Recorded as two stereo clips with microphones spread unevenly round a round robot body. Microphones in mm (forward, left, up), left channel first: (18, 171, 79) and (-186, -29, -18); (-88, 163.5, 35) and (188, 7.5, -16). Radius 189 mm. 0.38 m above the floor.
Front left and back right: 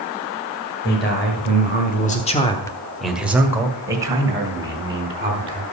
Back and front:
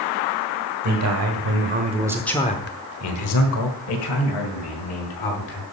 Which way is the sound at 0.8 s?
25° right.